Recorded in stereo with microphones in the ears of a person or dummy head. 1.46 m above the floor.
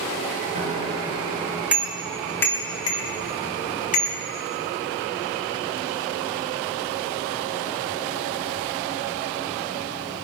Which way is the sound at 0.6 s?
35° right (ahead or behind).